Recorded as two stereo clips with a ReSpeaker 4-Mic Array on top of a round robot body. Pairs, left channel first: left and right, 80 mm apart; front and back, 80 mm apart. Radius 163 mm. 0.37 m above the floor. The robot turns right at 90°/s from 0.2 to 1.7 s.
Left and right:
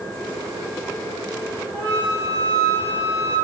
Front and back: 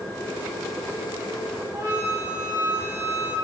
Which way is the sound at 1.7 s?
145° left.